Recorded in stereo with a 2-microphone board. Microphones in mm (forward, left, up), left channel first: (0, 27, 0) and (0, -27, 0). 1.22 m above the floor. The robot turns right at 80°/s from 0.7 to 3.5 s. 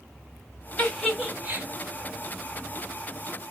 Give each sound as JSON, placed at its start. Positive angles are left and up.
{"t": 0.8, "sound": "a giggle", "side_deg": 25, "distance_m": 1.3}